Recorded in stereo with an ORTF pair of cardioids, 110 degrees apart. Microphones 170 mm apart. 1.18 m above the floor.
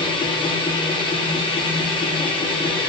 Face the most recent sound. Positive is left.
turn(degrees=30)